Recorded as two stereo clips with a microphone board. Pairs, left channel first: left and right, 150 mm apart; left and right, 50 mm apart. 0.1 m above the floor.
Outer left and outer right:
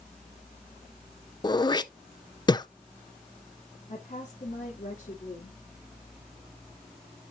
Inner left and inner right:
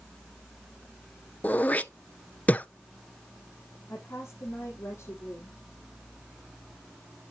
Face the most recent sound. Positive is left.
turn(degrees=50)  # may be behind; listen again after turning